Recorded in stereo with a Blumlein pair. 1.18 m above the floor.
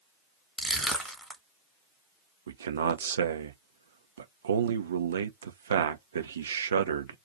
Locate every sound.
0.6 s crushing: straight ahead, 1.4 m
2.5 s a man speaking: 65° right, 0.6 m